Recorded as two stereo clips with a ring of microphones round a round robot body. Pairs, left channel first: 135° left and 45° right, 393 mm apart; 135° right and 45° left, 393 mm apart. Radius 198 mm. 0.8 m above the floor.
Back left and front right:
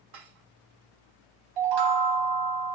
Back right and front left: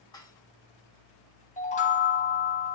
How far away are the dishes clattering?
About 1.6 m.